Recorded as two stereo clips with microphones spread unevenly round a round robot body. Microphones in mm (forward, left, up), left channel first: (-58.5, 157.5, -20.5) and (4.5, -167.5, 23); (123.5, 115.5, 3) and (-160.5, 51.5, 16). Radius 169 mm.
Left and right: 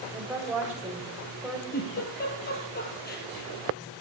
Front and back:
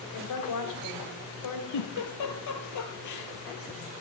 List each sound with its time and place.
0.1 s a woman speaking: 10° left, 3 m
1.7 s a giggle: 35° left, 2.5 m